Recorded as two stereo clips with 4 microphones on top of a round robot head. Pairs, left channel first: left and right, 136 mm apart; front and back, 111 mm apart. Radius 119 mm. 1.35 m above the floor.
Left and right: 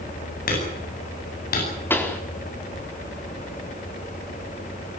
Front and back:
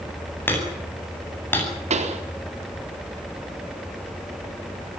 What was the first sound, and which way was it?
Hammering, 70° left.